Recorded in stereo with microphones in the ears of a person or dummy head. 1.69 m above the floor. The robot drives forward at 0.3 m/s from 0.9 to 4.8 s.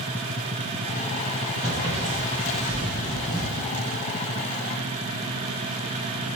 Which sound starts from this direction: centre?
Footsteps, at 1.6 s.